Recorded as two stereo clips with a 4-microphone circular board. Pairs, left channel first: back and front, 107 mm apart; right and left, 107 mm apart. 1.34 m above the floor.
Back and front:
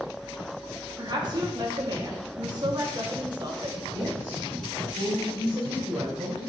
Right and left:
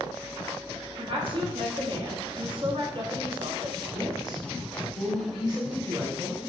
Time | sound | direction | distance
1.0 | a woman speaking | 50° left | 0.8 m
3.9 | a woman speaking | 45° left | 1.7 m